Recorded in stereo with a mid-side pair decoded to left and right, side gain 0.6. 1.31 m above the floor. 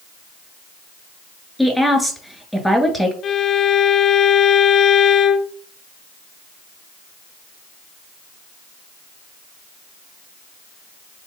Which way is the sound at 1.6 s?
Straight ahead.